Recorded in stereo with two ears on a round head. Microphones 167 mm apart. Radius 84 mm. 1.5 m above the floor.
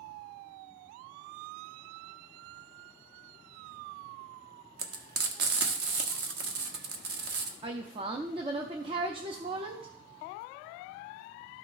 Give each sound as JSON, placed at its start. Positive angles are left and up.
{"t": 4.8, "sound": "frying", "side_deg": -55, "distance_m": 1.0}
{"t": 7.6, "sound": "a woman speaking", "side_deg": -30, "distance_m": 0.6}